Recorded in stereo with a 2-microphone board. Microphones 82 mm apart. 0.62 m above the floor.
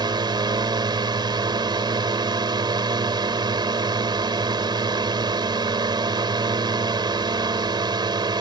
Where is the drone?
65° right (ahead or behind).